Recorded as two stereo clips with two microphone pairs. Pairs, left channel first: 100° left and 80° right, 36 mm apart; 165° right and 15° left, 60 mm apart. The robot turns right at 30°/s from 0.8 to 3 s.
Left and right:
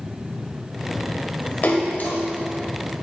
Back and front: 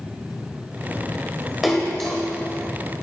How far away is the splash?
About 1.4 m.